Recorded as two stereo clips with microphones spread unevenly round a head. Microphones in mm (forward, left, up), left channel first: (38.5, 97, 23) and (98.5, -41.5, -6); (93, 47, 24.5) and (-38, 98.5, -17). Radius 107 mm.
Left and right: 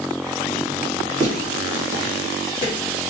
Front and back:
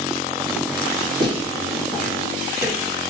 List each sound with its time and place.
1.2 s footsteps: 110° left, 1.7 m; by 2.7 s 140° left, 2.5 m